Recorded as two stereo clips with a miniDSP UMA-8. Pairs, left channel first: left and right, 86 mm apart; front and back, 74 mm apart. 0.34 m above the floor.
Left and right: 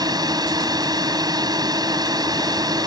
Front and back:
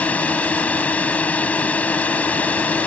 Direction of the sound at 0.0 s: 65° right.